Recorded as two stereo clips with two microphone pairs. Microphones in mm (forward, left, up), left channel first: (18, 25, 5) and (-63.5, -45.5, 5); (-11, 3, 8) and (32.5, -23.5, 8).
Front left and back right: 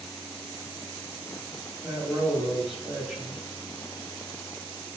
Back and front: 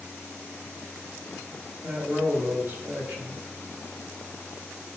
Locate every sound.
1.8 s a man speaking: 55° right, 2.5 m